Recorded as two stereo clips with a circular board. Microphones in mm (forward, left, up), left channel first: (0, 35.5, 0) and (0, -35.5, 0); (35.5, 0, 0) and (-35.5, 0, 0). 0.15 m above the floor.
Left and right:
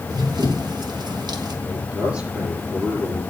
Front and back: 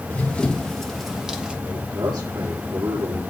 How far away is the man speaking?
About 8 m.